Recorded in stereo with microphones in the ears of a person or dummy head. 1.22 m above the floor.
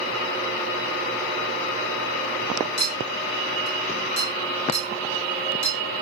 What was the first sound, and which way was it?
A clink, 30° right (ahead or behind).